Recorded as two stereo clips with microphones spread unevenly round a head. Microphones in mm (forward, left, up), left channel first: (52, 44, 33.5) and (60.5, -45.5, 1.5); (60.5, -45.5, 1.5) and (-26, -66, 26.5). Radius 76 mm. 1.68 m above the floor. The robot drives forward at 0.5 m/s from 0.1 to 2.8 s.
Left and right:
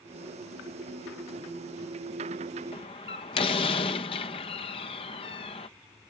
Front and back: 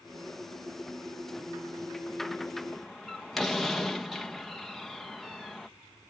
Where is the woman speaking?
No woman speaking in this recording.